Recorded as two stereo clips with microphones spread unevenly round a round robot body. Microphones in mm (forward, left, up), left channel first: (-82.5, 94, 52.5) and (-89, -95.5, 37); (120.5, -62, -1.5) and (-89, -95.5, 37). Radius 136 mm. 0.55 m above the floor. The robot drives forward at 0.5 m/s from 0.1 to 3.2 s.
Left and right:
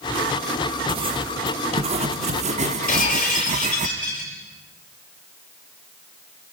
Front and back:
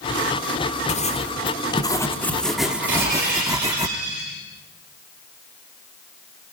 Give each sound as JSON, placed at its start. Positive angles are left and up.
{"t": 0.9, "sound": "writing", "azimuth_deg": -35, "distance_m": 1.6}
{"t": 2.9, "sound": "breaking glass", "azimuth_deg": 130, "distance_m": 8.5}